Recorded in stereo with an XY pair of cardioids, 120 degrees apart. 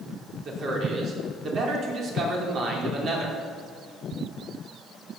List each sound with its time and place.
0.5 s a man speaking: 50° right, 4 m